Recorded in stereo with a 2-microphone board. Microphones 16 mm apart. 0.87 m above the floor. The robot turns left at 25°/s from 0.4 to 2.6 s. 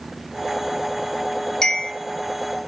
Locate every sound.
1.6 s a bell: 40° left (ahead or behind), 1.3 m; by 1.9 s 45° left (ahead or behind), 1.3 m